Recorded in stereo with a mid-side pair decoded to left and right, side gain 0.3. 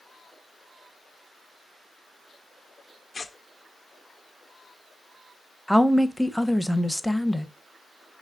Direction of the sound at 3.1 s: 50° left.